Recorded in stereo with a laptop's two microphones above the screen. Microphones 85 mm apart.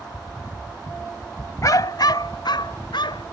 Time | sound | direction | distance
1.6 | a dog barking | 45° left (ahead or behind) | ?